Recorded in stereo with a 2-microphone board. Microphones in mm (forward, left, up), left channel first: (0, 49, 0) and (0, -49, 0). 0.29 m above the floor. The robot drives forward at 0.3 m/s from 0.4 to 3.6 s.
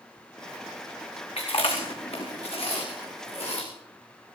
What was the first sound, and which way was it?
Chewing, 80° left.